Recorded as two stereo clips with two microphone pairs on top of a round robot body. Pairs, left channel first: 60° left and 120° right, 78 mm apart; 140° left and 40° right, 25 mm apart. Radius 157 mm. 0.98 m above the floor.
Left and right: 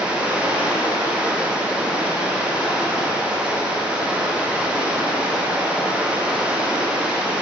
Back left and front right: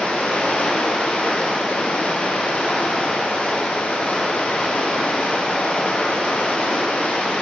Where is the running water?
165° left, 1.9 m.